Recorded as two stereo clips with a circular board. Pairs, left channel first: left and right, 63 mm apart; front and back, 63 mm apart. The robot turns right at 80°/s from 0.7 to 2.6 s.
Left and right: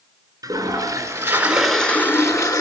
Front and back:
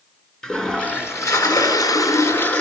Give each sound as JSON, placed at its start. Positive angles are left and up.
{"t": 0.4, "sound": "a toilet flushing", "azimuth_deg": -80, "distance_m": 4.0}